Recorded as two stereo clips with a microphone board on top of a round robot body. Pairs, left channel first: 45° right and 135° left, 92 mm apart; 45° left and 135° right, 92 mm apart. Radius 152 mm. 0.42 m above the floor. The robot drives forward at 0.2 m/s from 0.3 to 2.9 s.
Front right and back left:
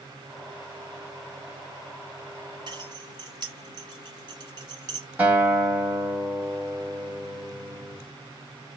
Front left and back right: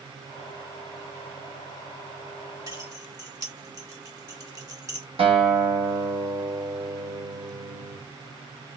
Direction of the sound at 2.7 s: 175° left.